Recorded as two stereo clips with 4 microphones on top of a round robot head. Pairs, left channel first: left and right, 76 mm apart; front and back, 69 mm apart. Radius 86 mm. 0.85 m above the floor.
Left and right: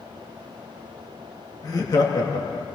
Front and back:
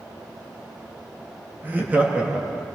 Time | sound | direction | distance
1.6 | laughter | 120° left | 1.7 m